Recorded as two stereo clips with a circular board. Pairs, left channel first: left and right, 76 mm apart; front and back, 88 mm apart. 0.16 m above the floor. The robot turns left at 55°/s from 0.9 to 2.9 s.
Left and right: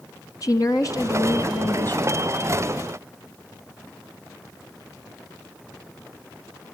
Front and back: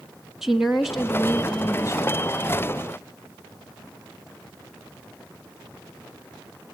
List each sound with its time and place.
0.4 s a woman speaking: 95° left, 1.7 m; by 2.2 s 25° left, 1.7 m